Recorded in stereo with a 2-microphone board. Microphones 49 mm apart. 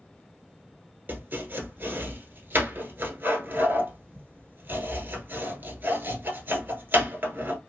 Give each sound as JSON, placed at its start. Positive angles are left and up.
{"t": 1.1, "sound": "chopping", "side_deg": -40, "distance_m": 1.0}